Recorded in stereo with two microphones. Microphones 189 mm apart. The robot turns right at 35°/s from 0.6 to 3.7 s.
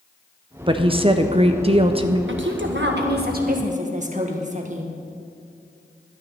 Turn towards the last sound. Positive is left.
turn(degrees=-40)